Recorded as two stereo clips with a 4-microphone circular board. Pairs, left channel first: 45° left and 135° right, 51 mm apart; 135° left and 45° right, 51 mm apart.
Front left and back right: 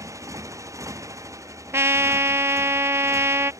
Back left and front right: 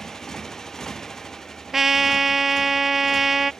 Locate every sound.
0.0 s a motorcycle: 145° right
1.7 s a trumpet: 130° right